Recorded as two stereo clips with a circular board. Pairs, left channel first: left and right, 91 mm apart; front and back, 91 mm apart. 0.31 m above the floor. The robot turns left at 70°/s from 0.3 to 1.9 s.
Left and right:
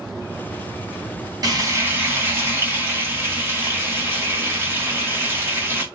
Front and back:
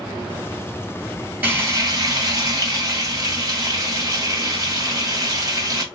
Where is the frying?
115° right, 2 m; by 5.8 s 145° right, 2 m.